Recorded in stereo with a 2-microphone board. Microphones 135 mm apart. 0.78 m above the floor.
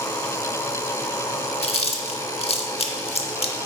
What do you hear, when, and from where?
1.6 s chewing: 50° left (ahead or behind), 0.7 m